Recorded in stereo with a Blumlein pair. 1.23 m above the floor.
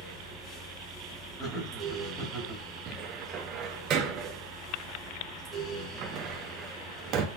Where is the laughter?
5° right, 2.5 m.